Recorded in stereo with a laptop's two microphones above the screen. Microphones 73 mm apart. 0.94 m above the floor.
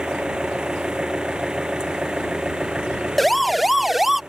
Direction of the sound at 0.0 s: 10° right (ahead or behind).